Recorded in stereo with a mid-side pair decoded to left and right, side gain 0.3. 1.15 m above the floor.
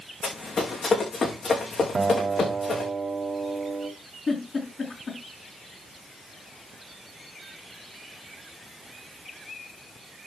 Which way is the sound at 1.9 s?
55° right.